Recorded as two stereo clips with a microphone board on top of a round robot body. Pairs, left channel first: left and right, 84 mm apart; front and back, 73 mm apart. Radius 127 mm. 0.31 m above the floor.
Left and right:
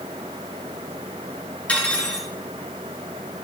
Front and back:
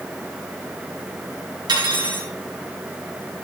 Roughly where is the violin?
I don't hear a violin.